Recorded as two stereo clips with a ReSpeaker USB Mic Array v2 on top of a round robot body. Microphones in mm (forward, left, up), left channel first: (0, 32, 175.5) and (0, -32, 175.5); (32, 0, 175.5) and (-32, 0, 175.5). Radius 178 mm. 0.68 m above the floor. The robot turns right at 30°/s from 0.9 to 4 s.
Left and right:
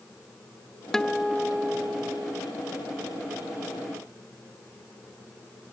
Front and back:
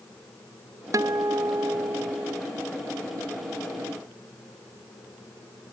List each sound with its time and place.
0.9 s a guitar: 170° left; by 2.4 s 145° right